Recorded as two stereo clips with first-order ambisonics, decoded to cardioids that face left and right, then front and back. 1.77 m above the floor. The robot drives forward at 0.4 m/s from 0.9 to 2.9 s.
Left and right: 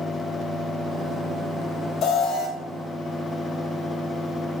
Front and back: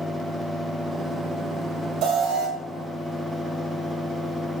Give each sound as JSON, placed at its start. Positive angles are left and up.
{"t": 2.0, "sound": "an alarm", "azimuth_deg": 145, "distance_m": 1.1}